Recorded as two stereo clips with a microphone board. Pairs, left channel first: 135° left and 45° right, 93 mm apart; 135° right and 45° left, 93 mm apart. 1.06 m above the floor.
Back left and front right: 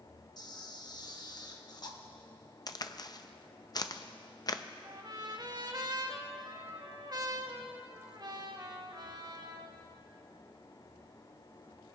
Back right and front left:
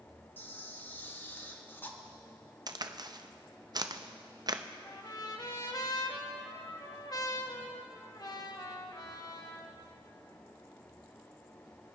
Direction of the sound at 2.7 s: 90° left.